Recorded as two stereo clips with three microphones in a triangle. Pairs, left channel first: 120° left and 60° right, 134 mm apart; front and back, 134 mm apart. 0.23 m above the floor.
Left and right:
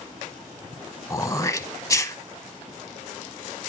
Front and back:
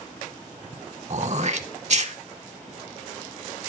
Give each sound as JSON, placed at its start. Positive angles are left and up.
{"t": 1.1, "sound": "throat clearing", "azimuth_deg": 180, "distance_m": 0.7}